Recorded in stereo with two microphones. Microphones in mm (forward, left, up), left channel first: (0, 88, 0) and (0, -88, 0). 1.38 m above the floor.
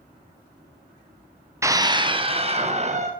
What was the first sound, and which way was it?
A scream, 15° right (ahead or behind).